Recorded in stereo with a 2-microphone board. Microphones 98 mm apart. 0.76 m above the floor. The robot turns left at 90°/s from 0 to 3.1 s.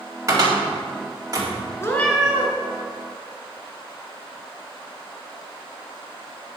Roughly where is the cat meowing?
Ahead left.